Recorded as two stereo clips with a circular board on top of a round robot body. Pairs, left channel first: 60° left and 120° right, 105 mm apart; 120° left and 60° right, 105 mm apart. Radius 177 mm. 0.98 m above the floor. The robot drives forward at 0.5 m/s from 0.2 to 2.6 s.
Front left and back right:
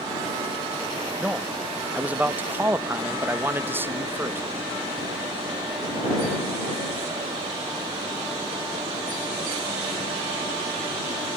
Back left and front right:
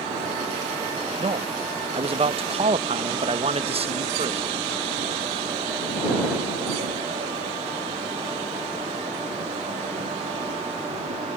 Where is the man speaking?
35° right; by 4.4 s 50° right.